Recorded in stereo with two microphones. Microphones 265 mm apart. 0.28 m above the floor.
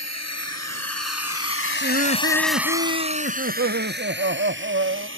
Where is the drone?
70° left (ahead or behind); by 5.2 s 50° right (ahead or behind).